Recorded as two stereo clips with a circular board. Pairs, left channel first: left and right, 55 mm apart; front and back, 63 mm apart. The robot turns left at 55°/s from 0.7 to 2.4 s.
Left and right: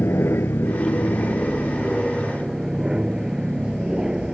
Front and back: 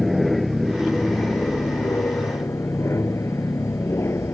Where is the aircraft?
90° left; by 4.3 s 15° right.